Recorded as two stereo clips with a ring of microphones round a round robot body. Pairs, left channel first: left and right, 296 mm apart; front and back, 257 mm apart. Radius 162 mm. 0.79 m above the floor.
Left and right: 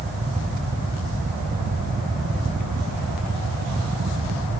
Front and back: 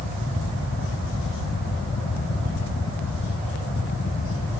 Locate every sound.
Only background noise.